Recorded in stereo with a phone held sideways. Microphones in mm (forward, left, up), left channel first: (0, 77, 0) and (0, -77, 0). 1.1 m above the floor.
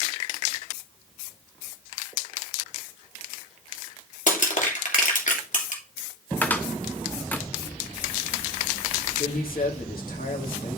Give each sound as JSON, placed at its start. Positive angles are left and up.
{"t": 4.3, "sound": "crushing", "side_deg": 60, "distance_m": 2.5}
{"t": 6.4, "sound": "a cupboard door", "side_deg": 10, "distance_m": 1.0}
{"t": 9.2, "sound": "a man speaking", "side_deg": 80, "distance_m": 2.5}